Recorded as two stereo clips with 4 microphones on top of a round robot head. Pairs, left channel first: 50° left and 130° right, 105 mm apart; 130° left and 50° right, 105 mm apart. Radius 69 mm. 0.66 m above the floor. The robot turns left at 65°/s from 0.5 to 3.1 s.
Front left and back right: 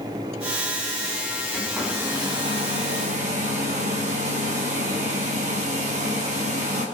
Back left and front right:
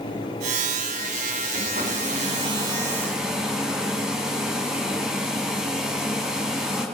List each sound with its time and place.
1.5 s a hair dryer: 30° right, 3.5 m; by 6.8 s 130° right, 3.5 m